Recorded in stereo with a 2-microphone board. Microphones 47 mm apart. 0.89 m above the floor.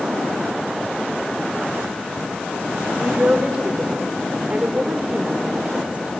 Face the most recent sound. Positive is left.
turn(degrees=-30)  # may be behind; listen again after turning